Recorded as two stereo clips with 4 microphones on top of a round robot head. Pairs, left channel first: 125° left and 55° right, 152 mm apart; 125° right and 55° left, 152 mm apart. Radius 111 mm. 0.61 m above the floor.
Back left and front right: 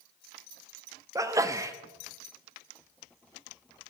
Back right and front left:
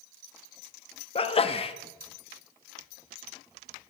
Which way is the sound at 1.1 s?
110° right.